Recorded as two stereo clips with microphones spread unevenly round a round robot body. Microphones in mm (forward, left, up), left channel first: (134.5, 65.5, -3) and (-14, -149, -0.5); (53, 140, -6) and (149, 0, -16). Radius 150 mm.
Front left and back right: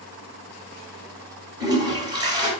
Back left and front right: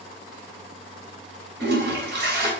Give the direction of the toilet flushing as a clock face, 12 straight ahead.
2 o'clock.